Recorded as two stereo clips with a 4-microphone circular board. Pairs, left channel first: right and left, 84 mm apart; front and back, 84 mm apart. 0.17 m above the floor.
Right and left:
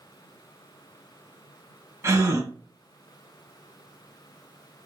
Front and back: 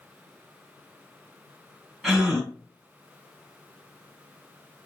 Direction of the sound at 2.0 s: 85° left.